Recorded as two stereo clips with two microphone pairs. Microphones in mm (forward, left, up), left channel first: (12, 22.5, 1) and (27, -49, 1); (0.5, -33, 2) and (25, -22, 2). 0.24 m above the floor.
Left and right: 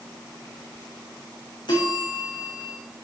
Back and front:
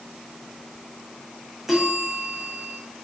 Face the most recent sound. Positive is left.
turn(degrees=100)